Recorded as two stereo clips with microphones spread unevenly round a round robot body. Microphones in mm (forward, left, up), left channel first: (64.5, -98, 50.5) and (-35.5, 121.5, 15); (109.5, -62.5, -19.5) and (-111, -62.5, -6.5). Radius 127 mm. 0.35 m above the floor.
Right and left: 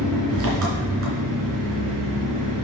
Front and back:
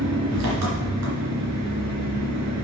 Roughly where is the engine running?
Behind left.